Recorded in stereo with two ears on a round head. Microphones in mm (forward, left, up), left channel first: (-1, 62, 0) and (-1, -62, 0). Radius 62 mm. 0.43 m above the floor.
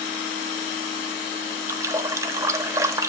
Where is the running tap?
20° right (ahead or behind), 0.8 m.